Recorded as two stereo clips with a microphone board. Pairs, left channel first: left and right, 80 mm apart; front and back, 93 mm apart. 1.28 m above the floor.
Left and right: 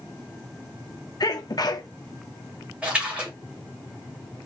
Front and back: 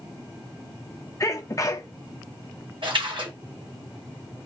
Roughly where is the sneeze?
Ahead left.